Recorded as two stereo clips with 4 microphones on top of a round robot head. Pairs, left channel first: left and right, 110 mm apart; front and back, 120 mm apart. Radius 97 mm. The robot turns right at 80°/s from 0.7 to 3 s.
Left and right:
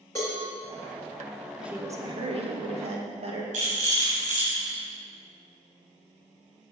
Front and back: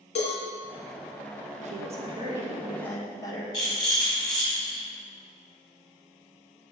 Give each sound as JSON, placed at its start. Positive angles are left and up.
{"t": 0.1, "sound": "a cowbell", "azimuth_deg": 15, "distance_m": 2.0}
{"t": 1.6, "sound": "a woman speaking", "azimuth_deg": -175, "distance_m": 1.5}
{"t": 3.5, "sound": "a rattle", "azimuth_deg": -65, "distance_m": 3.5}